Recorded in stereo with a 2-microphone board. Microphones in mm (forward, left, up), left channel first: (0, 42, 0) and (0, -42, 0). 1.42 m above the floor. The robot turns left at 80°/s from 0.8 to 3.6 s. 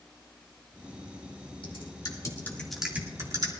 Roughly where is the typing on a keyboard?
Left.